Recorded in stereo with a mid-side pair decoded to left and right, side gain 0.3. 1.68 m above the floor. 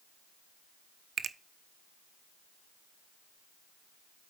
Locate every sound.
1.2 s a finger snap: 65° right, 0.8 m